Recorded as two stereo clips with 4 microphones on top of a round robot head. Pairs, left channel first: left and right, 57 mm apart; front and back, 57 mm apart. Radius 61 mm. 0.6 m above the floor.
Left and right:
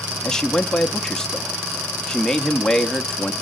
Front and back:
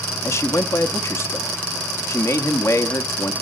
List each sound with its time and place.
0.2 s a man speaking: 10° left, 0.8 m